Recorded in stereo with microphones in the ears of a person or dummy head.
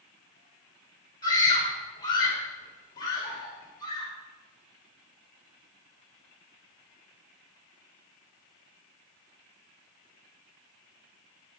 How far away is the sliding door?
I don't hear a sliding door.